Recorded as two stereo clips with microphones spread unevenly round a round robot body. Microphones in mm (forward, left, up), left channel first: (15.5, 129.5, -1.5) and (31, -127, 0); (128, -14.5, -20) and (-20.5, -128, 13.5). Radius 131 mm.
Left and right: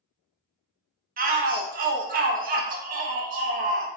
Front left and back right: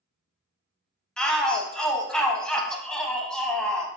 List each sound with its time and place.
1.2 s a shout: 40° right, 0.7 m